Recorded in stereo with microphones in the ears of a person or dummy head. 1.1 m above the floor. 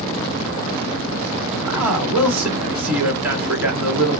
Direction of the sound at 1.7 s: 5° right (ahead or behind).